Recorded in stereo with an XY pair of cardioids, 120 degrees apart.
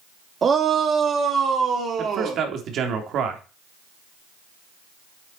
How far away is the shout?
About 2 m.